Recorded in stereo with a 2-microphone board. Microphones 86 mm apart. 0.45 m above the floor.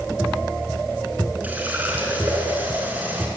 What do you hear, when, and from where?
1.4 s a running tap: 20° right (ahead or behind), 4 m